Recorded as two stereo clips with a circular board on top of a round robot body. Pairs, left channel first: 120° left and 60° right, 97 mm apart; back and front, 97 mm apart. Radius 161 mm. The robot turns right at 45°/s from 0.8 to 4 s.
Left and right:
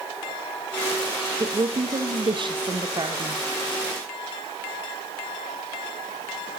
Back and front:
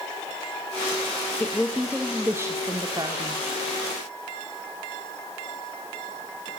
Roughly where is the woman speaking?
Right.